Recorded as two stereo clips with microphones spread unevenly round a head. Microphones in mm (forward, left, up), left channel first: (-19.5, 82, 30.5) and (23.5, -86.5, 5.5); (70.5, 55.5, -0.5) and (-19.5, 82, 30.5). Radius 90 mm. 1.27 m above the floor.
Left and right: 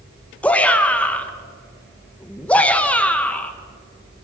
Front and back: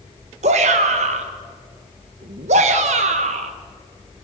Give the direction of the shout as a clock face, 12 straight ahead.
6 o'clock.